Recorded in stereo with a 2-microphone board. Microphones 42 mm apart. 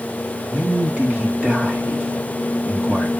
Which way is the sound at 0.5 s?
35° right (ahead or behind).